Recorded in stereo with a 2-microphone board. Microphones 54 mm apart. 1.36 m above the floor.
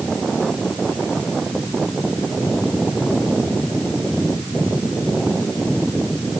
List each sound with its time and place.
Only background noise.